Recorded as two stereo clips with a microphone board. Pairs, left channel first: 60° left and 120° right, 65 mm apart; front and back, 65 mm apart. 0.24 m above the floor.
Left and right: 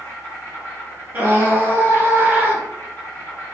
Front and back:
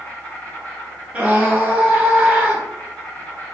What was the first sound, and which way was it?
An insect, 55° left.